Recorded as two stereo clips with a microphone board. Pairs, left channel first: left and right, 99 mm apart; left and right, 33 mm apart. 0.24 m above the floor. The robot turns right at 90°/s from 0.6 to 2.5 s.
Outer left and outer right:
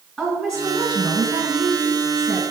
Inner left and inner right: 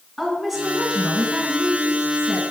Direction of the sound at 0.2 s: Straight behind.